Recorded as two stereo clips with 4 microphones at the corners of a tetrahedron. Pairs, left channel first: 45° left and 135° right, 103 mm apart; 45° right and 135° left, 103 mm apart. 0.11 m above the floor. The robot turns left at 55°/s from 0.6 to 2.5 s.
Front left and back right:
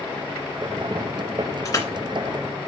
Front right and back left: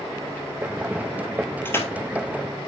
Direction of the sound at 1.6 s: 15° left.